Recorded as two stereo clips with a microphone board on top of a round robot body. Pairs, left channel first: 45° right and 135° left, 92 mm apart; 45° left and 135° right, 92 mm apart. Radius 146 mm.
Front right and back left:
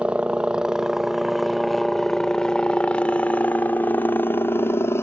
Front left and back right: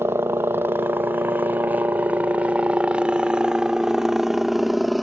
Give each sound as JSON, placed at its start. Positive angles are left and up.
{"t": 0.0, "sound": "a helicopter", "azimuth_deg": -160}